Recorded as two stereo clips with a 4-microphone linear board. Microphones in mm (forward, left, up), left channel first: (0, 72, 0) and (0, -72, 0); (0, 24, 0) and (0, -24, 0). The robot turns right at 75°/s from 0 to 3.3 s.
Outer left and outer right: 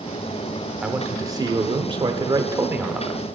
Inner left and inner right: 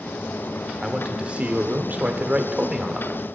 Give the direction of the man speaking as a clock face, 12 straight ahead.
6 o'clock.